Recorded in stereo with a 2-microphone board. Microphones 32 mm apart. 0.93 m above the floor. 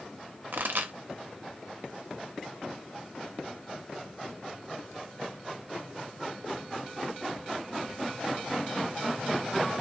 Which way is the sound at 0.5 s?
80° right.